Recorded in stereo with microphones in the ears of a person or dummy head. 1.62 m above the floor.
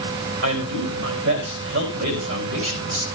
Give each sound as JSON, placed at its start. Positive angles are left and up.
{"t": 0.4, "sound": "a man speaking", "side_deg": -65, "distance_m": 3.0}